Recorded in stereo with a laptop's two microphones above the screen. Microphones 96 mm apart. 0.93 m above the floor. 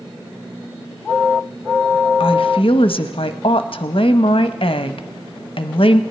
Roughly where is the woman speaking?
Left.